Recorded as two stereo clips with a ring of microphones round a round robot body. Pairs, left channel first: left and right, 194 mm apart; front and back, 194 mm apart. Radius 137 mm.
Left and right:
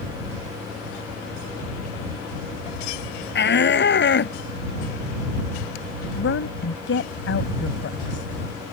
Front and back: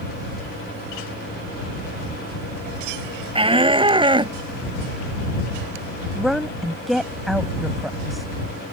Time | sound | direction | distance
3.4 | a shout | 120° left | ?
6.2 | a woman speaking | 90° left | ?